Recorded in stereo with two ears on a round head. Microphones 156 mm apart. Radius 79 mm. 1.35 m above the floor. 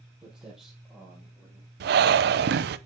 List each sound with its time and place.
0.2 s footsteps: 5° right (ahead or behind), 2.5 m; by 1.7 s 5° left (ahead or behind), 3.5 m
1.8 s breathing: 70° right (ahead or behind), 0.5 m